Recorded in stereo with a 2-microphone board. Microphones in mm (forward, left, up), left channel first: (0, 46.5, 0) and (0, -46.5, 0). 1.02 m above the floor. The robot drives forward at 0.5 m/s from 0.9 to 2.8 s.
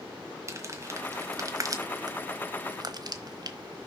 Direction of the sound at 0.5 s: 30° right (ahead or behind).